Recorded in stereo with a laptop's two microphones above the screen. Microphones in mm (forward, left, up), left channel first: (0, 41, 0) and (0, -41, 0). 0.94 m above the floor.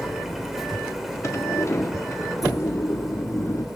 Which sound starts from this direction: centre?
A machine running, at 0.0 s.